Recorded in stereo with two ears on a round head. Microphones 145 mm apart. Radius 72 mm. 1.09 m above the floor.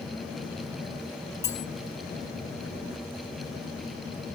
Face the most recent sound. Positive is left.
turn(degrees=20)  # may be behind; listen again after turning